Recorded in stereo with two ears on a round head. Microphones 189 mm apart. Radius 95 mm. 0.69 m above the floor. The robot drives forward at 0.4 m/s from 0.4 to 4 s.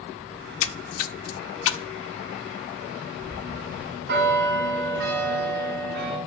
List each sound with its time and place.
0.4 s a splash: 65° left (ahead or behind), 0.7 m; by 1.9 s 60° left (ahead or behind), 0.7 m
3.2 s a bell: 55° right (ahead or behind), 4 m; by 6.2 s 50° right (ahead or behind), 4.5 m